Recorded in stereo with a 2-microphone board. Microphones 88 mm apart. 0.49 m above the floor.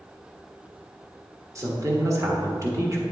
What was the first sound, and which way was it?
A woman speaking, 35° right (ahead or behind).